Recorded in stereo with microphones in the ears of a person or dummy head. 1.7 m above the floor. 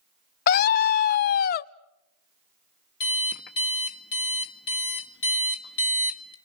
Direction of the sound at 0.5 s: 55° left (ahead or behind).